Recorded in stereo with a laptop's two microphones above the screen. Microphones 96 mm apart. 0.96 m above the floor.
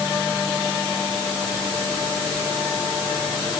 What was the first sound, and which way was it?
Only background noise.